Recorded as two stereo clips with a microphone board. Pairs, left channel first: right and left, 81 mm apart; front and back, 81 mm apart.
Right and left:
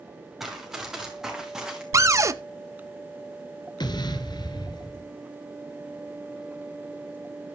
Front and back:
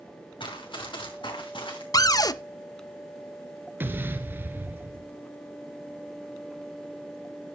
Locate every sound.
0.4 s running footsteps: 5° left, 5.5 m; by 1.8 s 10° left, 4.5 m
1.9 s a cupboard door: 40° left, 0.6 m
3.8 s an explosion: 115° right, 1.3 m